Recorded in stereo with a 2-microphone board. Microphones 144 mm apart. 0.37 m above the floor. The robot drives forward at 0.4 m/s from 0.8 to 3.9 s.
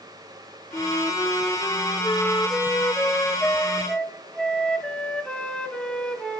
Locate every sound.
0.7 s a flute: 20° left (ahead or behind), 0.5 m; by 6.4 s 5° left (ahead or behind), 1.4 m